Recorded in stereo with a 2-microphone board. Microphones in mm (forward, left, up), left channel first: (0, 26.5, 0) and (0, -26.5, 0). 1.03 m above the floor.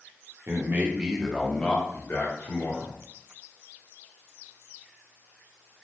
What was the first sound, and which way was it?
A man speaking, 45° right (ahead or behind).